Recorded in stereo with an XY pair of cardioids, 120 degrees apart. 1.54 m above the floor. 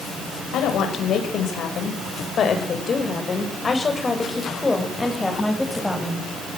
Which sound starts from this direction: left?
A woman speaking, at 0.5 s.